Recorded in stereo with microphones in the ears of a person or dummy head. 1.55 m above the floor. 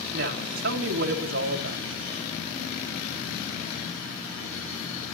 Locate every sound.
0.1 s a woman speaking: 50° right (ahead or behind), 2.5 m